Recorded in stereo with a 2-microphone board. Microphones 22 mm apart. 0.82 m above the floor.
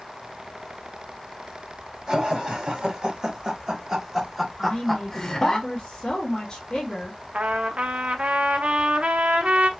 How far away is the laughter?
About 1.7 m.